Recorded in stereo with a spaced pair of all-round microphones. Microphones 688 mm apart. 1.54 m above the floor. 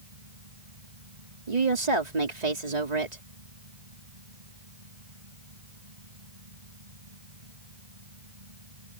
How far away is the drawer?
No drawer in this recording.